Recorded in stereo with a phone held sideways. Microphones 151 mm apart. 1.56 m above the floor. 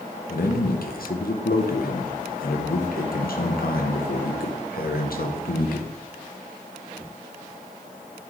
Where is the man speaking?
75° left (ahead or behind), 1.0 m.